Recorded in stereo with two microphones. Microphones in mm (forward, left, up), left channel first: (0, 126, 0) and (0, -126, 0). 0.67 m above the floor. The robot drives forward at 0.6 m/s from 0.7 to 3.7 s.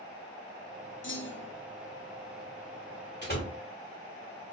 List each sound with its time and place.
1.0 s a clunk: 50° left (ahead or behind), 0.7 m; by 1.6 s 40° left (ahead or behind), 0.9 m
3.2 s a door slam: 40° left (ahead or behind), 1.6 m